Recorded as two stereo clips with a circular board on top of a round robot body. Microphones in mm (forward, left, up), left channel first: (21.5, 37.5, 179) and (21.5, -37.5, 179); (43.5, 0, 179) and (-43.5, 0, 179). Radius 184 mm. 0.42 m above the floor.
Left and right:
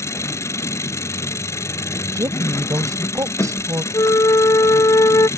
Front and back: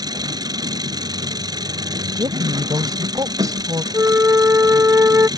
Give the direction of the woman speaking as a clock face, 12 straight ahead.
4 o'clock.